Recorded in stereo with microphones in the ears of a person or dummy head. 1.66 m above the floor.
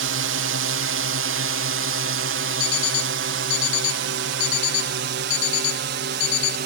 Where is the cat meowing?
No cat meowing in this recording.